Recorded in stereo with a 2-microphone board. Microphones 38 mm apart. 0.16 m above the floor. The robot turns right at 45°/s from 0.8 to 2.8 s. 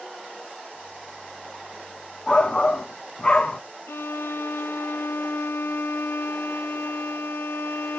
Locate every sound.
2.3 s a shout: 15° left (ahead or behind), 1.1 m; by 3.6 s 25° left (ahead or behind), 1.1 m
3.9 s a violin: 80° left, 0.7 m